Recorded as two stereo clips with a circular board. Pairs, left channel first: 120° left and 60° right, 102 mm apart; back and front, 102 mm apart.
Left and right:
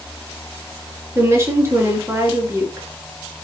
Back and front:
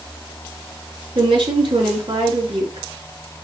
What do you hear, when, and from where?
1.1 s a woman speaking: 5° right, 3 m